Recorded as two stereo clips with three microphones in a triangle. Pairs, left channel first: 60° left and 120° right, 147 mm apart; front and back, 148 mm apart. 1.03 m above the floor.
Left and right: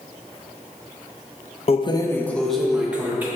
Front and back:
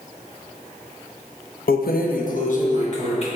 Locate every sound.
1.7 s keys jangling: 10° left, 0.6 m; by 3.3 s 40° right, 1.3 m